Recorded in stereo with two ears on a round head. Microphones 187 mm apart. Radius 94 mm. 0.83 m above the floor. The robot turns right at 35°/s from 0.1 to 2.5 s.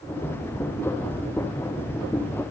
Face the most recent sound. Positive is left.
No sound to turn to.